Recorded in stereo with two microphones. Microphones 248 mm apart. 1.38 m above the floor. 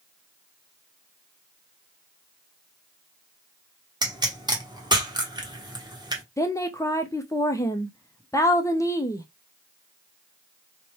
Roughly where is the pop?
Centre.